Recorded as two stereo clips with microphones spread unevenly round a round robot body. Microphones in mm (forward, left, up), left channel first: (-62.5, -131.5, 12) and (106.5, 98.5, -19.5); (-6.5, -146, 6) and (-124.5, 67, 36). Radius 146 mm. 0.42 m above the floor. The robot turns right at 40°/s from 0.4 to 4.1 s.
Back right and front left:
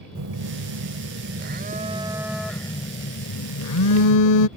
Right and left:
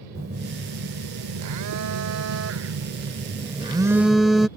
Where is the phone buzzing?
60° left; by 4.5 s 150° right.